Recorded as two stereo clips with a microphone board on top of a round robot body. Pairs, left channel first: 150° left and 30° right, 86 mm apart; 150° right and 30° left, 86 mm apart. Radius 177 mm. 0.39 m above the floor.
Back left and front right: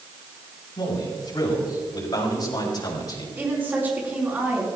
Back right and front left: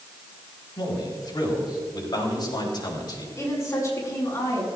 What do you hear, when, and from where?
0.8 s a man speaking: straight behind, 5 m
3.4 s a woman speaking: 100° right, 5 m